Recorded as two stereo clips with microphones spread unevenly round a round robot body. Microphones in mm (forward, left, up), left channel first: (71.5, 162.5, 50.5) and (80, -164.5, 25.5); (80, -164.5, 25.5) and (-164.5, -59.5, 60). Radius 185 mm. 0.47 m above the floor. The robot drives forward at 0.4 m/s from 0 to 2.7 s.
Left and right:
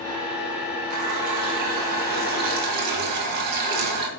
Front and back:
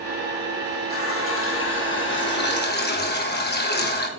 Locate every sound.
0.9 s a running tap: 60° right, 2.5 m; by 4.1 s 75° right, 2 m